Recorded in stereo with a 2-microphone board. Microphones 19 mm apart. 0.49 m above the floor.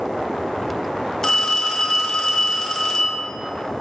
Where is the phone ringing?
25° left (ahead or behind), 1.0 m.